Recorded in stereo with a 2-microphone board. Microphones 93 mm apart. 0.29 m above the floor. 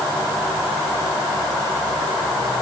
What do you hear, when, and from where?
Only background noise.